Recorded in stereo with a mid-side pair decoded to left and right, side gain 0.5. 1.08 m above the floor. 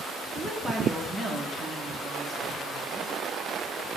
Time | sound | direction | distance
0.3 | a woman speaking | 25° right | 3 m